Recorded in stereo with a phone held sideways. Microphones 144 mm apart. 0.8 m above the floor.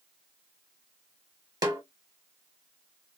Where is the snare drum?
30° right (ahead or behind), 0.7 m.